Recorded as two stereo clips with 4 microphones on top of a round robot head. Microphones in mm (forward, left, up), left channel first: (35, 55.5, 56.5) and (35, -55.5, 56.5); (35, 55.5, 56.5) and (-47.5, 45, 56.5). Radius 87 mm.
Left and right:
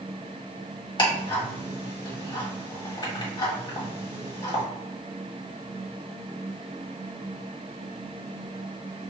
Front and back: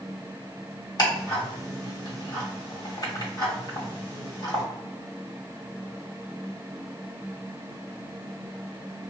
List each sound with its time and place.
1.0 s ticking: 40° left, 1.8 m